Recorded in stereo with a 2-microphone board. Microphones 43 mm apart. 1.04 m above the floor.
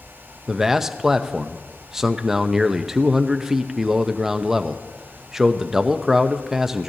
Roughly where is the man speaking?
Centre.